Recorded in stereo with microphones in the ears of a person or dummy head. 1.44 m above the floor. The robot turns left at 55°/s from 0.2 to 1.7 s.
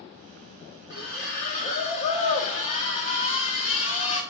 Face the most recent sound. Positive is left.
turn(degrees=75)